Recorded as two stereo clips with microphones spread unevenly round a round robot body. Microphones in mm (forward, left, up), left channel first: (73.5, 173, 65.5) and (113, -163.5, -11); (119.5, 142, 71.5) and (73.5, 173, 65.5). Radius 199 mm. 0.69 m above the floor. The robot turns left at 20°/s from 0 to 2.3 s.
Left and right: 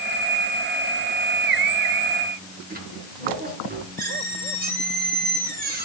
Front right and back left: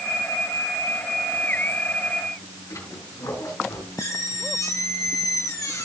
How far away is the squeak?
About 4.5 m.